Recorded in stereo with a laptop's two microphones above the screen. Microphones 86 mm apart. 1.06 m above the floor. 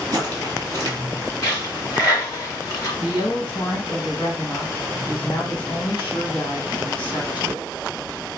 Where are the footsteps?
45° right (ahead or behind), 1.4 m.